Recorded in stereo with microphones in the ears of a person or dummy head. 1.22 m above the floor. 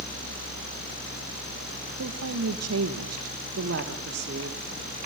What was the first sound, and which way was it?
A woman speaking, 75° right (ahead or behind).